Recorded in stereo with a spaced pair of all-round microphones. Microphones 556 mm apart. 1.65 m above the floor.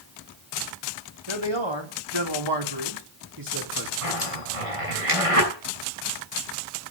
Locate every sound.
1.3 s a man speaking: 55° right (ahead or behind), 4 m; by 3.9 s 35° right (ahead or behind), 4 m
4.0 s a zipper: 75° right (ahead or behind), 7 m